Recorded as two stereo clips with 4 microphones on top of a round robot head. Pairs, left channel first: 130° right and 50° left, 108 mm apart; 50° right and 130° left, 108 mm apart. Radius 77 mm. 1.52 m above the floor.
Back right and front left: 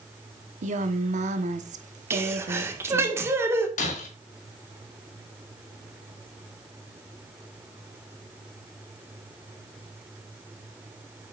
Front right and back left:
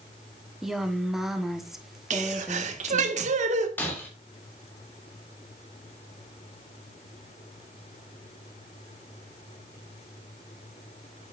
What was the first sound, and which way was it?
A woman speaking, 45° left.